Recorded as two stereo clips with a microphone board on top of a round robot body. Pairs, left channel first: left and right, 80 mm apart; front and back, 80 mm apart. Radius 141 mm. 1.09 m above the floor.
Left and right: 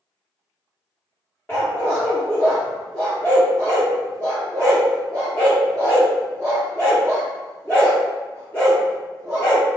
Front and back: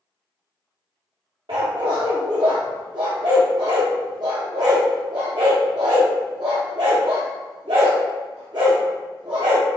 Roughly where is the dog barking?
Behind.